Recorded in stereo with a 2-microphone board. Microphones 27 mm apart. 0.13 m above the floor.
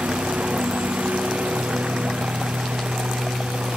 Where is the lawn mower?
80° right.